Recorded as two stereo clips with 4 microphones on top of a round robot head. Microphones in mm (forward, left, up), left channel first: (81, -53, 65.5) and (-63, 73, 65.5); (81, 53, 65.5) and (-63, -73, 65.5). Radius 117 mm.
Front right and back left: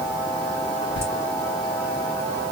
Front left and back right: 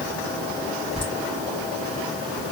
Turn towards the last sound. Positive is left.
turn(degrees=-25)